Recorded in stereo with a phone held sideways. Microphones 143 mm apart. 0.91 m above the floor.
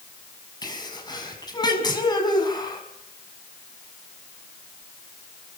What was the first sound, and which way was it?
A sneeze, 30° left (ahead or behind).